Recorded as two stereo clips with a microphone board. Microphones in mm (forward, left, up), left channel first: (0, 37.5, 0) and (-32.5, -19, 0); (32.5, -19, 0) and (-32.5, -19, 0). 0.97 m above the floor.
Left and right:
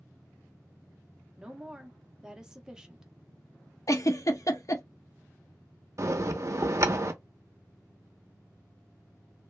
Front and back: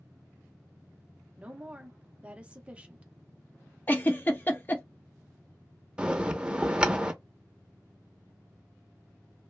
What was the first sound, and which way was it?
A woman speaking, straight behind.